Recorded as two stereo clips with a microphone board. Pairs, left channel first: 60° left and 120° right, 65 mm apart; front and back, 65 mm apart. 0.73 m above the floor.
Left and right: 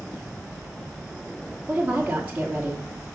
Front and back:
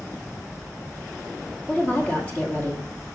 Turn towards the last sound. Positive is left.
turn(degrees=-60)